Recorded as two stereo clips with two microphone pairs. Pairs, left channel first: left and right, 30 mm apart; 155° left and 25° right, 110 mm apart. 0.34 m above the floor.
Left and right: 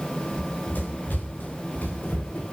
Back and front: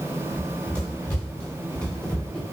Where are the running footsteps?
80° left, 10 m; by 2.4 s 75° left, 8.5 m.